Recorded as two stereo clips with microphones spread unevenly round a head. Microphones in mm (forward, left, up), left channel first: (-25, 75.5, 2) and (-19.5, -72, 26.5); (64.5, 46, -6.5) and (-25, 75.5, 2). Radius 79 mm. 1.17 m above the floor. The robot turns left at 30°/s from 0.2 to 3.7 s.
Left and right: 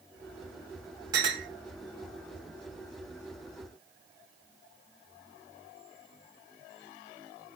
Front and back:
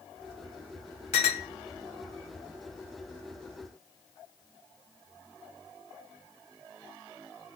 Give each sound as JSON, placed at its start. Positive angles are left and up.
{"t": 1.1, "sound": "a clink", "azimuth_deg": -25, "distance_m": 0.8}